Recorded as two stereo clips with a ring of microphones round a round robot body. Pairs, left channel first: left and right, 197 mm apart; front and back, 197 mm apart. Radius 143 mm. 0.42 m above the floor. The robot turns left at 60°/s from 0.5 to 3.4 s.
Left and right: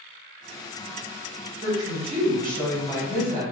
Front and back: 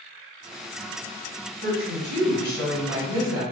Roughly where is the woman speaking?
Ahead.